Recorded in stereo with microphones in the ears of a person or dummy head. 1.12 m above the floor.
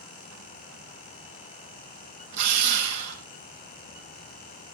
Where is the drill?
60° right (ahead or behind), 5 m.